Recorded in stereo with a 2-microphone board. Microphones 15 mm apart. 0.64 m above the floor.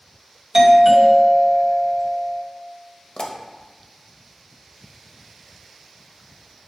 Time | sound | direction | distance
0.5 | a doorbell | 30° right (ahead or behind) | 2.5 m
3.2 | a pop | 60° left (ahead or behind) | 1.1 m